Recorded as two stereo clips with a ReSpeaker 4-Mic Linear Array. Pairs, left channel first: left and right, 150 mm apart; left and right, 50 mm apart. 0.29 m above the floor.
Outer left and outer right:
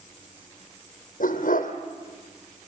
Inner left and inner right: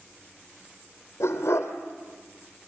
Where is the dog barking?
75° left (ahead or behind), 3 m.